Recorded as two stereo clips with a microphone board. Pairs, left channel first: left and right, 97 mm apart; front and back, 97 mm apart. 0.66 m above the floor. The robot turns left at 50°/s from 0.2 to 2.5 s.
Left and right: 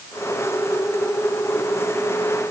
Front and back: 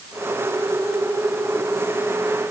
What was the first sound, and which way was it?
Only background noise.